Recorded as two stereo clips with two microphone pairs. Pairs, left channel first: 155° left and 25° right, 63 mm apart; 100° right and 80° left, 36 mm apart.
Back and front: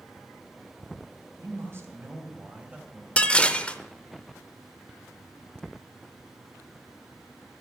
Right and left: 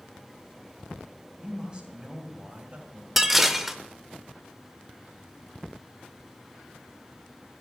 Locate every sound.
1.4 s a man speaking: 15° left, 3 m; by 3.1 s 50° left, 1.9 m
3.2 s dishes clattering: 150° left, 0.7 m